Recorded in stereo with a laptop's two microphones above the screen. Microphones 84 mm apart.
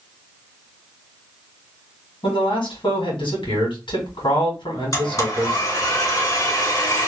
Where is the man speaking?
75° left (ahead or behind), 1.7 m.